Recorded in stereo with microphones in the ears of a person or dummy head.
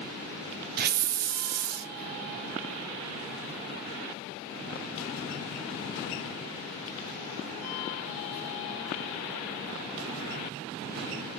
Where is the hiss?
45° right (ahead or behind), 0.8 m.